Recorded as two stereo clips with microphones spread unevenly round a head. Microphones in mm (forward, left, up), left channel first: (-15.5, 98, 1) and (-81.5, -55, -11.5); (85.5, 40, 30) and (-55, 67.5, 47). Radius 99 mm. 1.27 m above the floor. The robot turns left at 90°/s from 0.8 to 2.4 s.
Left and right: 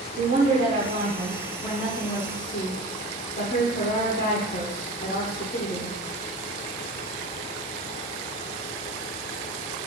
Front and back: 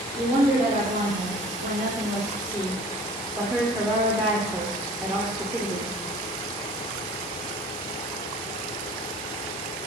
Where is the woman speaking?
135° right, 0.6 m; by 6.0 s 80° left, 0.6 m.